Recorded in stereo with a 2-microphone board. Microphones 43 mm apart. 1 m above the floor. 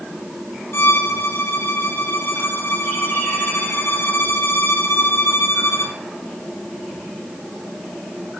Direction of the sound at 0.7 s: 70° left (ahead or behind).